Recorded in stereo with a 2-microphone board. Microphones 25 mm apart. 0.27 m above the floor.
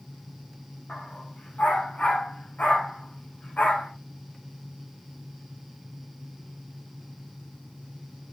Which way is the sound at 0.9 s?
75° left (ahead or behind).